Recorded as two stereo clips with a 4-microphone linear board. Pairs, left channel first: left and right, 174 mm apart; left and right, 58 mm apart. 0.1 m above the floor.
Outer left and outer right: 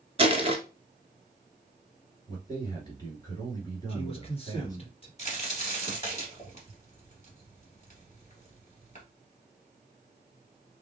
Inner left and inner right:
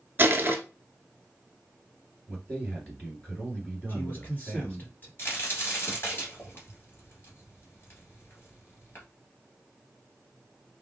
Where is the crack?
40° left (ahead or behind), 2 m.